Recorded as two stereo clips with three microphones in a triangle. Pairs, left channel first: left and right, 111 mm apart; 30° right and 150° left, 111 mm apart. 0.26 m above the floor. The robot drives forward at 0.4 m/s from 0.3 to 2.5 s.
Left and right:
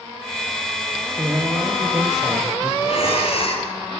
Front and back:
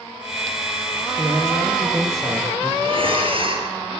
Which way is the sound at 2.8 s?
115° left.